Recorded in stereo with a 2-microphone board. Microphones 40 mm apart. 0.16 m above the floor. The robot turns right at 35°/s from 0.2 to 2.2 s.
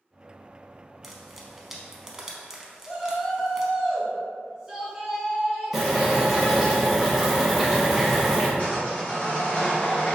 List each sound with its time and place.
1.0 s frying: 5° right (ahead or behind), 0.5 m; by 3.7 s 15° right (ahead or behind), 0.5 m
2.8 s a shout: 5° right (ahead or behind), 1.3 m
5.7 s boiling: 10° right (ahead or behind), 1.4 m
8.6 s sawing: 40° left (ahead or behind), 1.9 m